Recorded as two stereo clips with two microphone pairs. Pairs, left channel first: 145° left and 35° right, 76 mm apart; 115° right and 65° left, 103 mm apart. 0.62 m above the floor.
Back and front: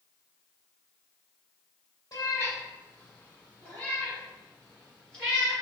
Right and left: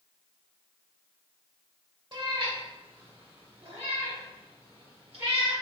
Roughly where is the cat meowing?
Left.